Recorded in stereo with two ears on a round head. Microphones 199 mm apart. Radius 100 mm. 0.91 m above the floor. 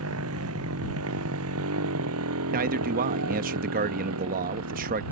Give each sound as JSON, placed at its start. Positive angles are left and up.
{"t": 0.0, "sound": "a motorcycle", "side_deg": -70}
{"t": 2.5, "sound": "a man speaking", "side_deg": -40}